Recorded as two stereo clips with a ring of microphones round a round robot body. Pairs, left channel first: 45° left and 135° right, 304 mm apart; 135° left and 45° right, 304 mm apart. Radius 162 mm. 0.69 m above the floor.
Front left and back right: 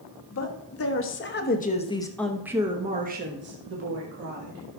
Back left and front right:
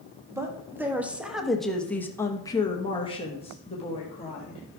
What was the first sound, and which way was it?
A woman speaking, 35° left.